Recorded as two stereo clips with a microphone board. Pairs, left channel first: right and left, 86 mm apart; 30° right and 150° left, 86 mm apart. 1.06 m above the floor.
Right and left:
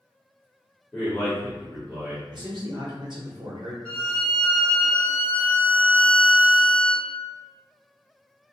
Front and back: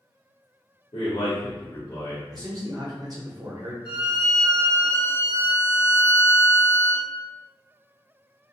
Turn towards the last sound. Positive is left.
turn(degrees=-15)